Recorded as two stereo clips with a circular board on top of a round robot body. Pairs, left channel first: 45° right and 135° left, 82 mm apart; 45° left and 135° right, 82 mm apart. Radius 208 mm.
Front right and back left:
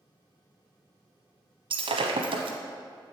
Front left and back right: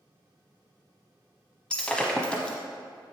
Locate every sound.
1.7 s breaking glass: 125° left, 1.0 m